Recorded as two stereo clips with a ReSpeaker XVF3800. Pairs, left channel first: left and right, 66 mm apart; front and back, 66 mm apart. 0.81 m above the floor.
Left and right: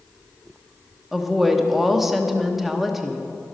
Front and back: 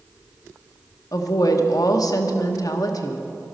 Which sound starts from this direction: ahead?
A woman speaking, at 1.1 s.